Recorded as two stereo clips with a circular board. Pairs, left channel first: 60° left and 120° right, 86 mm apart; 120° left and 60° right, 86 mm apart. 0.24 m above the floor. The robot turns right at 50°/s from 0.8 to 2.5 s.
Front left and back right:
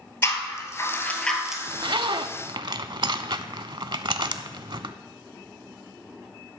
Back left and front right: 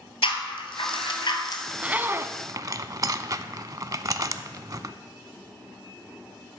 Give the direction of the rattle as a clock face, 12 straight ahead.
8 o'clock.